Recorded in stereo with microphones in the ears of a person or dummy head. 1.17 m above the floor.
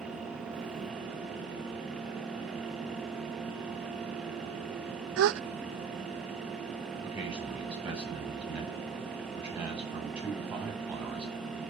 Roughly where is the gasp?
Right.